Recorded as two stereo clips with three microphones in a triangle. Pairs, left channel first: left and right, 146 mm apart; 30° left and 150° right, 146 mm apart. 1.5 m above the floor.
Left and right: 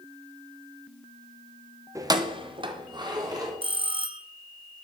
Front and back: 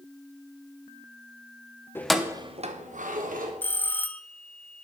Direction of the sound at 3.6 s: 45° right.